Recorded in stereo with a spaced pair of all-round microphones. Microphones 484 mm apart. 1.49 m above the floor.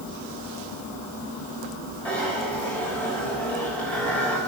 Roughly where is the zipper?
Centre.